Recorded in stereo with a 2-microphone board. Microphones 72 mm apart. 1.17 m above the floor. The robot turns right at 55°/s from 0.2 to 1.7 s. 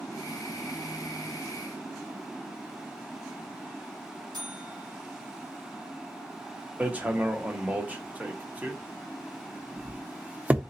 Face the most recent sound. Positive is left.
turn(degrees=-20)  # may be behind; listen again after turning